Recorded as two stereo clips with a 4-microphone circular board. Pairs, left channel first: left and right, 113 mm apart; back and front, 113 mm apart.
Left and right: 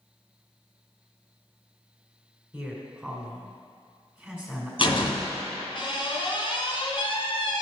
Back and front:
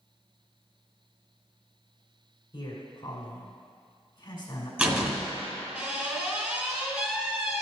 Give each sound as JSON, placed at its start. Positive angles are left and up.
{"t": 2.5, "sound": "a man speaking", "azimuth_deg": -170, "distance_m": 1.9}
{"t": 4.8, "sound": "a door slam", "azimuth_deg": 70, "distance_m": 1.5}